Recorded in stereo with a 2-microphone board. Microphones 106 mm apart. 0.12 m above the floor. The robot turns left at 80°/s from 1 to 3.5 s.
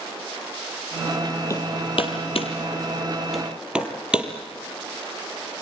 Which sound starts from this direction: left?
Hammering, at 1.5 s.